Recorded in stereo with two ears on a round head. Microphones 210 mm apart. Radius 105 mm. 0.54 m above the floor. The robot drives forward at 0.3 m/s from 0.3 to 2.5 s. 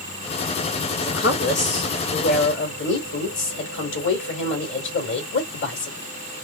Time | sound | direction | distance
1.0 | a woman speaking | 45° left (ahead or behind) | 2.5 m